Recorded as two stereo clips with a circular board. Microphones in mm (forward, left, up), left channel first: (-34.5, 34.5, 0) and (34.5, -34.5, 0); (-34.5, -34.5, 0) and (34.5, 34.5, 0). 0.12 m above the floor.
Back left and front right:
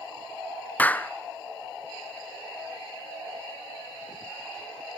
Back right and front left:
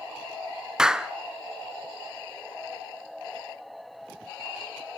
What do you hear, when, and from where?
0.8 s a clap: 115° left, 0.8 m